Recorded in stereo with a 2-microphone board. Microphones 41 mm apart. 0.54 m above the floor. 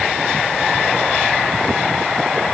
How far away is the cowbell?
No cowbell in this recording.